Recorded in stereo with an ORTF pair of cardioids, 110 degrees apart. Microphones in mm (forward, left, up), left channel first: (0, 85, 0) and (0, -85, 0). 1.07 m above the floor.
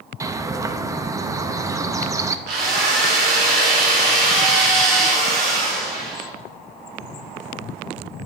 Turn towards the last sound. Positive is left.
turn(degrees=-70)